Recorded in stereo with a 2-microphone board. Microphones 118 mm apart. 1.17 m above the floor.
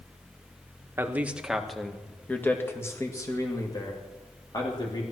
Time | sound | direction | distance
1.0 | a man speaking | 20° right (ahead or behind) | 1.2 m